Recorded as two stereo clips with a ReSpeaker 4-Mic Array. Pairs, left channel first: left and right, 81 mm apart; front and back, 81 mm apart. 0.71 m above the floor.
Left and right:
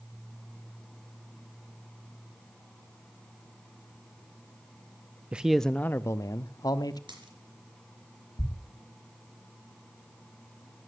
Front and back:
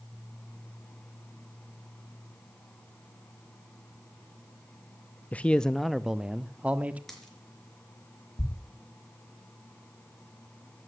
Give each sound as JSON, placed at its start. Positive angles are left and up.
{"t": 5.3, "sound": "a man speaking", "azimuth_deg": -40, "distance_m": 0.5}
{"t": 7.1, "sound": "a dropped coin", "azimuth_deg": -85, "distance_m": 4.0}
{"t": 8.4, "sound": "a thud", "azimuth_deg": 50, "distance_m": 0.9}